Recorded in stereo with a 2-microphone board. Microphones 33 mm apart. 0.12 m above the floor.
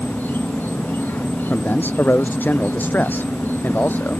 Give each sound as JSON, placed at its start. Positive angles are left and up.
{"t": 0.0, "sound": "an insect", "side_deg": 75}
{"t": 1.5, "sound": "a man speaking", "side_deg": 70}